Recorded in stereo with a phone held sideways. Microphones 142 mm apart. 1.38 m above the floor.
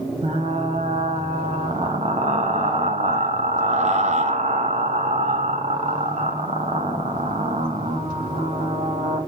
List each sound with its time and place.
0.2 s frying: 50° right (ahead or behind), 1.0 m